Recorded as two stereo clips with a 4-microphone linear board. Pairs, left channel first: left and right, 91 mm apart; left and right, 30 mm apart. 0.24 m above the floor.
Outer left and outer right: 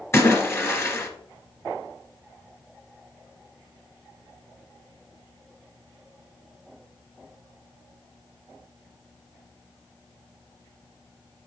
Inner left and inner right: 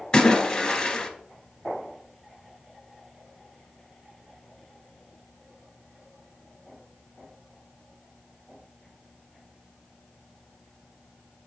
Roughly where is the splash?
Left.